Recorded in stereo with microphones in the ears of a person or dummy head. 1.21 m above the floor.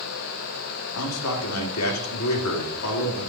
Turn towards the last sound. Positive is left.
turn(degrees=80)